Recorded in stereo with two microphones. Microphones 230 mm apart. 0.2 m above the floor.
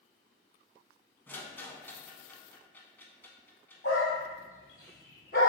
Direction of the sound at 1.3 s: 10° left (ahead or behind).